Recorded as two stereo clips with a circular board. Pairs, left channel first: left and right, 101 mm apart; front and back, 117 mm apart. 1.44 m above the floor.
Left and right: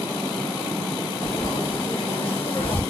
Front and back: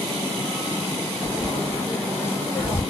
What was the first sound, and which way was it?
Frying, 70° left.